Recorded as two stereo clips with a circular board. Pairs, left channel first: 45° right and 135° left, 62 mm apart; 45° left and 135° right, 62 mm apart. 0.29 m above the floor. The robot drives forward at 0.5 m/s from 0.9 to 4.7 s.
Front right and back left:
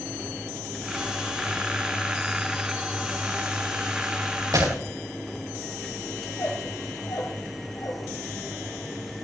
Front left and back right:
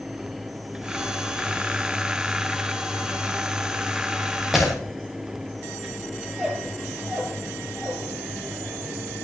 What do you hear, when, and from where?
4.5 s breaking glass: 140° left, 5 m
6.3 s a squeak: 60° right, 3 m